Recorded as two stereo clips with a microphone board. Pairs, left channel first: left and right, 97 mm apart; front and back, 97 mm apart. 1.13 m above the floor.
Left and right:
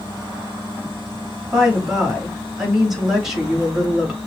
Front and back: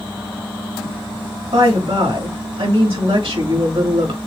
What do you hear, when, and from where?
1.5 s a woman speaking: 175° right, 2 m